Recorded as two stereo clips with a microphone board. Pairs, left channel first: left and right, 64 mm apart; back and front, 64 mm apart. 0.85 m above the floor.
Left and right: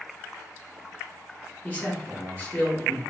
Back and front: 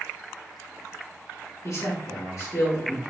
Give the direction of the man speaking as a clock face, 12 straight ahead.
7 o'clock.